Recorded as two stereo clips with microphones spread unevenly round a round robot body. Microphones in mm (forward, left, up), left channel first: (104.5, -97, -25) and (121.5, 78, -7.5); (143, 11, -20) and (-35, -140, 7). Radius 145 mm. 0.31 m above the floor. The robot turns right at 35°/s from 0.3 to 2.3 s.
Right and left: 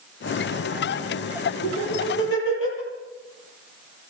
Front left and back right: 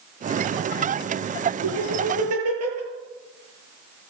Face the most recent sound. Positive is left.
turn(degrees=-125)